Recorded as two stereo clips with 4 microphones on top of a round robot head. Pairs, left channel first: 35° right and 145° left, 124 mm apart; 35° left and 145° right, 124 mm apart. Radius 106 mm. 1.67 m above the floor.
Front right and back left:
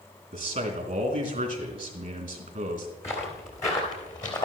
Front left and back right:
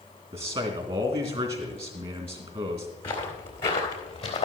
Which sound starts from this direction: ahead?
Footsteps, at 3.0 s.